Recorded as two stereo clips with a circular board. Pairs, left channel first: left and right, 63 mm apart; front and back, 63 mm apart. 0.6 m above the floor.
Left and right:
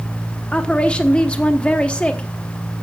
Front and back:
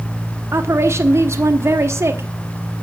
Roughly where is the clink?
I don't hear a clink.